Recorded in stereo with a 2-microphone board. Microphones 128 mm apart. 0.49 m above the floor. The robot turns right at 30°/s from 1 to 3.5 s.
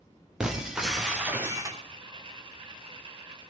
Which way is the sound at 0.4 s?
5° right (ahead or behind).